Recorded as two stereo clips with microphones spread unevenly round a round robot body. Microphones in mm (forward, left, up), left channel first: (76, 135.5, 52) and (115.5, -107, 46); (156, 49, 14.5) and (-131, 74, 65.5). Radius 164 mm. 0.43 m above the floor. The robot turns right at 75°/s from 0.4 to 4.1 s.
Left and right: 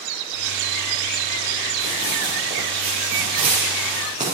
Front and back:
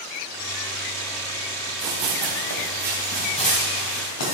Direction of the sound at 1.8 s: 140° left.